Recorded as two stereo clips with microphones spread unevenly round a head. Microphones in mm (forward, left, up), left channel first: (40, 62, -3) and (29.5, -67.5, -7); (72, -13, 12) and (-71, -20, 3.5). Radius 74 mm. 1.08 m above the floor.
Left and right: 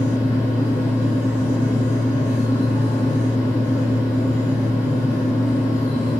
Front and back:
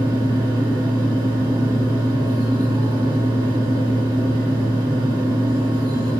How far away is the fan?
About 1.2 m.